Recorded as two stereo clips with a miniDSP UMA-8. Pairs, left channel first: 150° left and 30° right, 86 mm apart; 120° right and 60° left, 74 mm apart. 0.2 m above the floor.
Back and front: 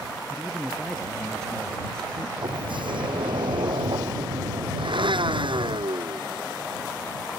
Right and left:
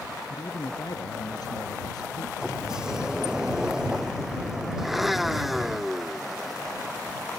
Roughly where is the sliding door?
Ahead.